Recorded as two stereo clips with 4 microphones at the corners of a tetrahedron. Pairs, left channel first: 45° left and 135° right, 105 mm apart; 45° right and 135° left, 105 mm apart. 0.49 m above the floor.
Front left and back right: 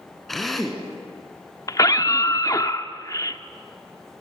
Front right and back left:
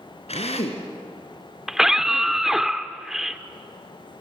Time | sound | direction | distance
0.3 | a drill | 45° right | 3 m
1.7 | a scream | 50° left | 0.9 m